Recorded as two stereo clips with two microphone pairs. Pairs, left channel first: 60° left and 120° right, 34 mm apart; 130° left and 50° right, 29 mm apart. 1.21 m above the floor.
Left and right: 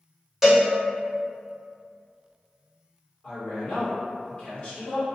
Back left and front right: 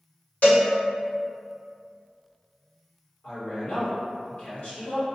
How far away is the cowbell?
About 1.0 m.